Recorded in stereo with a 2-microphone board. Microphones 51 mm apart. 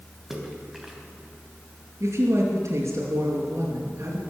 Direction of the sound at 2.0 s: 70° right (ahead or behind).